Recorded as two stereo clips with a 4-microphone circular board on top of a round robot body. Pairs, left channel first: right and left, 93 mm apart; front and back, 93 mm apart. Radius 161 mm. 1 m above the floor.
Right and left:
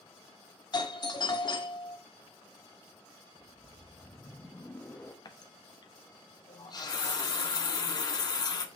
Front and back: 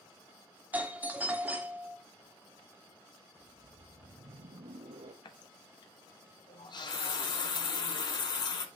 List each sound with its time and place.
0.7 s a doorbell: 110° right, 1.5 m
3.4 s a whoosh: 165° right, 0.6 m
5.2 s a running tap: 40° right, 1.0 m